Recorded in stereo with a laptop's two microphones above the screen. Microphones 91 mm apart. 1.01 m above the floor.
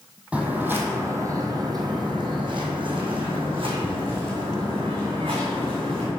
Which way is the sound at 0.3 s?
10° right (ahead or behind).